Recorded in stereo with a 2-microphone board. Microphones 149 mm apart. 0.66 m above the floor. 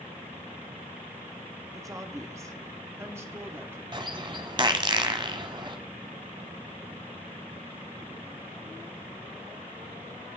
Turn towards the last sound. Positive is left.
turn(degrees=-30)  # may be behind; listen again after turning